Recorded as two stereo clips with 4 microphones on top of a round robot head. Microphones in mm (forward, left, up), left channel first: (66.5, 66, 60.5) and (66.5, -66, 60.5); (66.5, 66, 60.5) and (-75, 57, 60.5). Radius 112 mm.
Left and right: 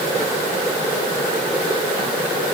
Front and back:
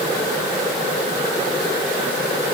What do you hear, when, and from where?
Only background noise.